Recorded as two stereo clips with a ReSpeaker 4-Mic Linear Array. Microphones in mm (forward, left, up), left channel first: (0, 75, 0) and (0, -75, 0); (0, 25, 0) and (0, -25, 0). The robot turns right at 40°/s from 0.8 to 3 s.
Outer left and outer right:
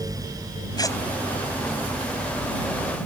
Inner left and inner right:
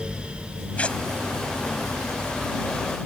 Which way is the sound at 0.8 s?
25° left (ahead or behind).